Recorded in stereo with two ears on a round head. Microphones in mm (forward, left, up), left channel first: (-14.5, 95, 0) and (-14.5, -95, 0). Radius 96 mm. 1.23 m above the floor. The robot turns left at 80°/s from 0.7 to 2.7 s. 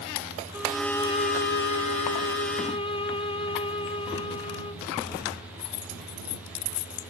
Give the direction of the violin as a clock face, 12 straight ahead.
6 o'clock.